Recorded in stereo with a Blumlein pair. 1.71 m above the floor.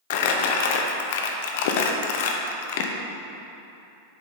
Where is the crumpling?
50° left, 0.7 m.